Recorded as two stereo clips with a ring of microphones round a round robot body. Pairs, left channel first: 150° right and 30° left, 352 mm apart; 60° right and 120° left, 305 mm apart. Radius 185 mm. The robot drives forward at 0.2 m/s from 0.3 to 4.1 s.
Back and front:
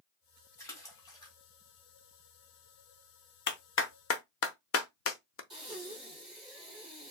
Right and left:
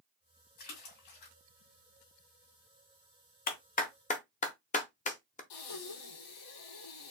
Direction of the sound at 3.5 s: 105° right.